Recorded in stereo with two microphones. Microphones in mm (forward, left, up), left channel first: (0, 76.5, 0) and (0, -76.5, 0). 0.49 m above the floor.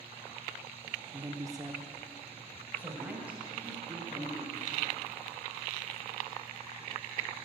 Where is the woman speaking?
25° right (ahead or behind), 1.0 m; by 4.6 s 5° right (ahead or behind), 4.5 m.